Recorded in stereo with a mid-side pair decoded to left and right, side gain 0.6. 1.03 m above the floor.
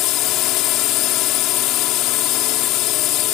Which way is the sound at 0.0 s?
70° left.